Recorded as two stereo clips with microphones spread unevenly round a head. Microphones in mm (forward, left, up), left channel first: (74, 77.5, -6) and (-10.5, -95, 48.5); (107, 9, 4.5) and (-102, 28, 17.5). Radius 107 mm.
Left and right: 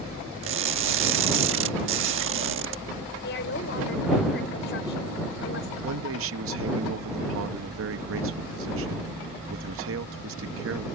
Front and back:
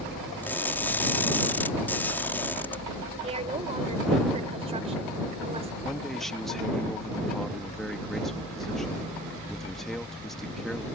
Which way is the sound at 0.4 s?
90° right.